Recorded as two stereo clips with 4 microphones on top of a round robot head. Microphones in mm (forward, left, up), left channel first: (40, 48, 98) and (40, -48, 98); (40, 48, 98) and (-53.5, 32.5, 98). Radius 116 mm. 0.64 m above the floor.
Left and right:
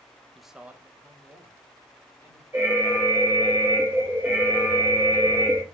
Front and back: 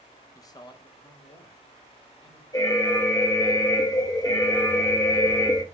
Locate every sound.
0.3 s a man speaking: 5° left, 0.6 m; by 2.4 s 25° right, 2.5 m
2.5 s an alarm: 25° right, 1.4 m